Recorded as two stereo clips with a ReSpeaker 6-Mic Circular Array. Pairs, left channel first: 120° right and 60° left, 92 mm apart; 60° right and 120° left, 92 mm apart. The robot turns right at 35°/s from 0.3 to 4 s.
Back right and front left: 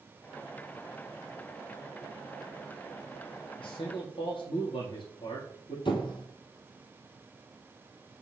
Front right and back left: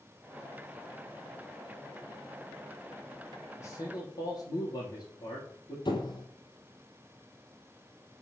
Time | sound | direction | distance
3.6 | a man speaking | 120° right | 5 m
5.8 | a squeak | 95° right | 2 m